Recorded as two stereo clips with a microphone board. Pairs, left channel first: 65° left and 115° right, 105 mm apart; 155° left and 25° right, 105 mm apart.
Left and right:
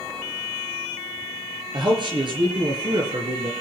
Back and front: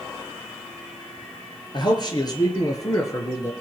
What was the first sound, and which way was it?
A man speaking, 160° right.